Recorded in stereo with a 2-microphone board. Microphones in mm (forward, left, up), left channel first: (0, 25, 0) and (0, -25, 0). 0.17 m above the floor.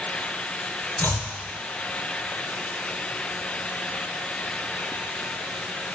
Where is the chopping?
50° left (ahead or behind), 2.0 m.